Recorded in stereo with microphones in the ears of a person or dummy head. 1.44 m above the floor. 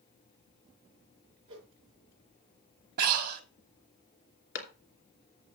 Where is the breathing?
50° right (ahead or behind), 1.4 m.